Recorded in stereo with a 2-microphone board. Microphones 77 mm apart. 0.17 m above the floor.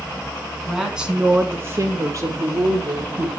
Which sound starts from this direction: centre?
A woman speaking, at 0.7 s.